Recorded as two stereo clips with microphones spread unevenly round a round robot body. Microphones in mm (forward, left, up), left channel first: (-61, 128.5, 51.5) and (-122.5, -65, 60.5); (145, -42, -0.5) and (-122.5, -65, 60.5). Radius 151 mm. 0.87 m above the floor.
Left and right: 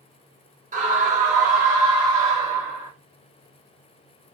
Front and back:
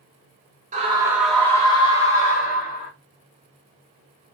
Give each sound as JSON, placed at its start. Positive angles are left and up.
{"t": 0.7, "sound": "a scream", "azimuth_deg": -110, "distance_m": 0.7}